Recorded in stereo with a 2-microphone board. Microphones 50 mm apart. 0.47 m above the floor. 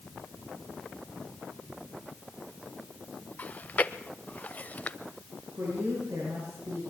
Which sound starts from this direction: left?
Chewing, at 3.4 s.